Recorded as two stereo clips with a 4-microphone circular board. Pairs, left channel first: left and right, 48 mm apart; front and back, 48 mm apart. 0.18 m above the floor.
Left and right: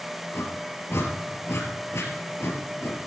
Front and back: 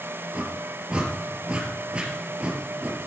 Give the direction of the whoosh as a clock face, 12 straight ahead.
8 o'clock.